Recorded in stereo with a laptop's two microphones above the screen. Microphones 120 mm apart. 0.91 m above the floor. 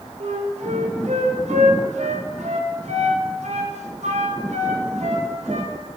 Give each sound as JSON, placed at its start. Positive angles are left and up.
{"t": 0.2, "sound": "a flute", "side_deg": -70, "distance_m": 0.5}